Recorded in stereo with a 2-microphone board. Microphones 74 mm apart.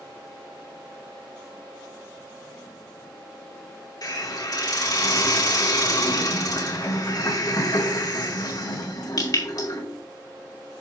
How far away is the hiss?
About 2.5 m.